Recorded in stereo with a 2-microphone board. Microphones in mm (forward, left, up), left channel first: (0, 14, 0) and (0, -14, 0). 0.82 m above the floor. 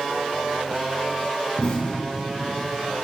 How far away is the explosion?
About 3.5 m.